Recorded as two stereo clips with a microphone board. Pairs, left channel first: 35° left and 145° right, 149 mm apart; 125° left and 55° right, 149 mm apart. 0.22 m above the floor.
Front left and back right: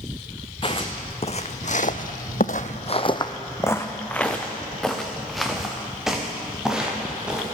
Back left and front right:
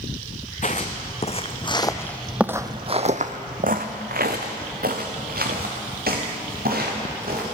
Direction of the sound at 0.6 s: 90° left.